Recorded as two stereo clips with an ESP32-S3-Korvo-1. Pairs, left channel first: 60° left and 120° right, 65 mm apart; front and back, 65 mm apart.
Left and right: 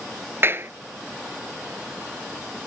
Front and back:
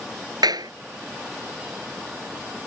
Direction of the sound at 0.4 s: 175° right.